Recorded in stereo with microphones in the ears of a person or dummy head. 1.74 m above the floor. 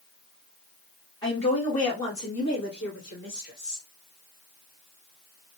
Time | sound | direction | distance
1.2 | a woman speaking | 20° left (ahead or behind) | 1.2 m